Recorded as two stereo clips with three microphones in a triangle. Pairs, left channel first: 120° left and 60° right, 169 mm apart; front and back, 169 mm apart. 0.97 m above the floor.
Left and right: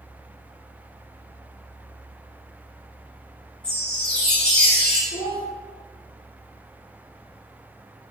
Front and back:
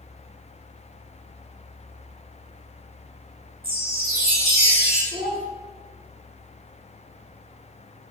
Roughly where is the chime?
Behind right.